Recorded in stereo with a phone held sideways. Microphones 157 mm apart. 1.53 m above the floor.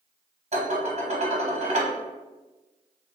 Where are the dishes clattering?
45° right (ahead or behind), 0.9 m.